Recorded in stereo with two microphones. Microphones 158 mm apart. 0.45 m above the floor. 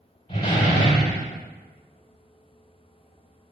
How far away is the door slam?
About 1.3 m.